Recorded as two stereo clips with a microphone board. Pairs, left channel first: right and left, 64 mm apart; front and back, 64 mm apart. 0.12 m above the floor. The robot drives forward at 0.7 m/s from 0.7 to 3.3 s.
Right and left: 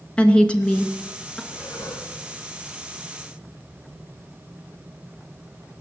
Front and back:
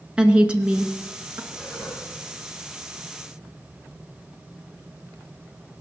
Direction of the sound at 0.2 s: 135° right.